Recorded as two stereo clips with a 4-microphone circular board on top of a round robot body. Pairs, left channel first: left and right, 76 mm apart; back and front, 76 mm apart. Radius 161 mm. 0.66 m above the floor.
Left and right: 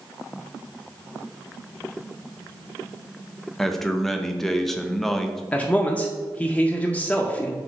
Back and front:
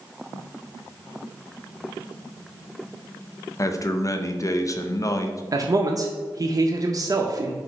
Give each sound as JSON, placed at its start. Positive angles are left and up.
{"t": 3.6, "sound": "a man speaking", "azimuth_deg": 175, "distance_m": 0.7}
{"t": 5.5, "sound": "a man speaking", "azimuth_deg": 20, "distance_m": 0.6}